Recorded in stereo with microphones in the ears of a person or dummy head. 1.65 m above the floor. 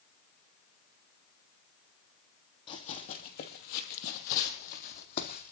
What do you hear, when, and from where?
2.7 s running footsteps: 25° left (ahead or behind), 2.5 m; by 5.5 s 45° left (ahead or behind), 4 m